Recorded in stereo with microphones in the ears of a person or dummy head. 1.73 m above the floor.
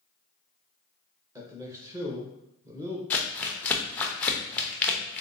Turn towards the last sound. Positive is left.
turn(degrees=5)  # may be behind; listen again after turning